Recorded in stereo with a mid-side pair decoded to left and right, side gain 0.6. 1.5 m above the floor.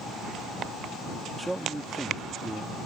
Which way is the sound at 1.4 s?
15° right.